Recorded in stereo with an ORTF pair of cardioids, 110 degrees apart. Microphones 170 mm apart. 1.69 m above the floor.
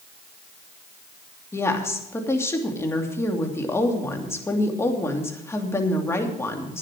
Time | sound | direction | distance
1.5 | a woman speaking | 15° left | 3 m